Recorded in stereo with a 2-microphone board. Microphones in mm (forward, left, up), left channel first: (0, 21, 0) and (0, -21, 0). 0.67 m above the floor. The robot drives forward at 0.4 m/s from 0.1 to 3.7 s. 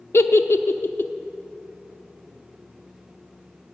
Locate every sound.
0.1 s a giggle: 80° left, 0.5 m; by 1.1 s 55° left (ahead or behind), 0.6 m